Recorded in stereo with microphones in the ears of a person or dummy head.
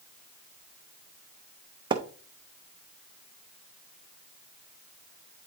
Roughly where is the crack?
I don't hear a crack.